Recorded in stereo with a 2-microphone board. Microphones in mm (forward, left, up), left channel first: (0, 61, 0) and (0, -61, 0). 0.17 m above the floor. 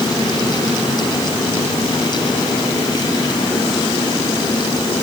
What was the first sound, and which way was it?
Only background noise.